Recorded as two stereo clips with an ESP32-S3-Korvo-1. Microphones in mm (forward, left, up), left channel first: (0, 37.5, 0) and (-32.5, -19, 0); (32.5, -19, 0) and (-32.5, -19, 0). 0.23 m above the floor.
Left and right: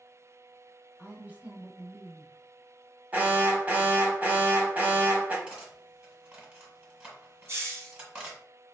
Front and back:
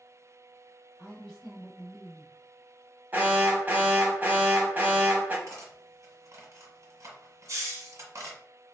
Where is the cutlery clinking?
175° left, 1.3 m.